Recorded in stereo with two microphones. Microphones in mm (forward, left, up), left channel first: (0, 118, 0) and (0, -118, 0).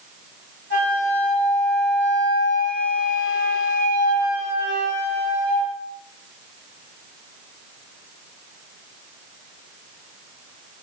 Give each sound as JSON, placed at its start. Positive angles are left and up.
{"t": 0.7, "sound": "a flute", "side_deg": 60, "distance_m": 1.9}